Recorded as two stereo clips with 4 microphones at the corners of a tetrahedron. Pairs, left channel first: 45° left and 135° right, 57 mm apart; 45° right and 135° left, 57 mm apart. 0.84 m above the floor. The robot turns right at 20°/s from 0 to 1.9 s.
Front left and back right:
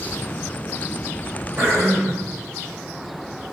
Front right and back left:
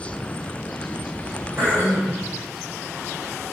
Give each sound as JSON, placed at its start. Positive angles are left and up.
{"t": 1.6, "sound": "throat clearing", "azimuth_deg": 170, "distance_m": 2.5}